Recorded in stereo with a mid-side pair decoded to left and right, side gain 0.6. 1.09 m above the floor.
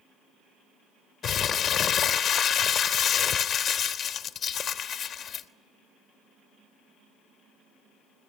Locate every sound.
1.2 s crumpling: 45° left, 1.0 m